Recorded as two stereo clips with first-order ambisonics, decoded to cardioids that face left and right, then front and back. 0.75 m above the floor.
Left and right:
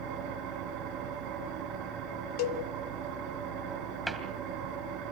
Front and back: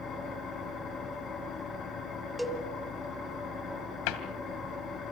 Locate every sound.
0.0 s an engine running: 65° right, 5.5 m
2.4 s a cowbell: 90° left, 1.6 m
4.1 s a cupboard door: 5° right, 2 m